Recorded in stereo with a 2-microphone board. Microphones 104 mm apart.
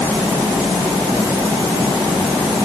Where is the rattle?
I don't hear a rattle.